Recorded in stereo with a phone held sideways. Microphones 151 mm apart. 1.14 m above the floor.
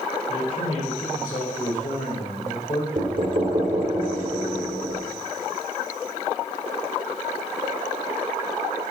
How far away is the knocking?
About 2 m.